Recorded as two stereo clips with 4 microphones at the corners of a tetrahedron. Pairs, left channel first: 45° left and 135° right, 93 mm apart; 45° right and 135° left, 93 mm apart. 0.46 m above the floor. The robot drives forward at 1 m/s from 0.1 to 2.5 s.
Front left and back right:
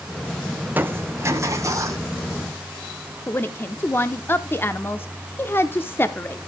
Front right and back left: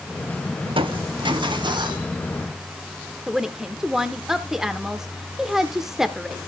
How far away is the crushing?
About 0.6 m.